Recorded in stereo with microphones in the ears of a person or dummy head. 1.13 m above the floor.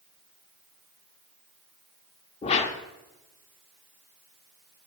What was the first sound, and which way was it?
A whoosh, 35° left (ahead or behind).